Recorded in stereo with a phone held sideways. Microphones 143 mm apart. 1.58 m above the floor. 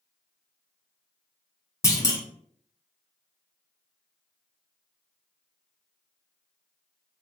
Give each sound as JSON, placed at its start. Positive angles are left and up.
{"t": 1.8, "sound": "a clunk", "side_deg": 20, "distance_m": 0.5}